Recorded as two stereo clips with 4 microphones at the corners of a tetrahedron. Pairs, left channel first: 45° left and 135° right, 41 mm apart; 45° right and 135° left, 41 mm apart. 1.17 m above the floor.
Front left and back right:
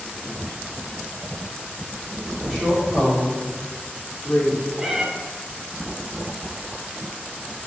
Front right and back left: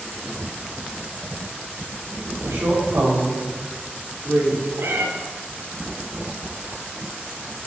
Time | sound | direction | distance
2.4 | a woman speaking | 140° left | 4 m
4.8 | a cat meowing | 145° left | 1.7 m